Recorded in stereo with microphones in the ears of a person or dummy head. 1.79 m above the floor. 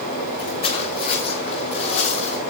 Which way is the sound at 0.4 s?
35° left (ahead or behind).